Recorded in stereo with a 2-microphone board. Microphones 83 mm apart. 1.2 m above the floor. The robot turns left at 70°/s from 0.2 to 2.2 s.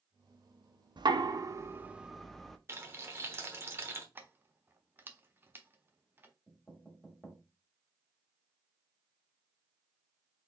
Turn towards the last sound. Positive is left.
turn(degrees=5)  # may be behind; listen again after turning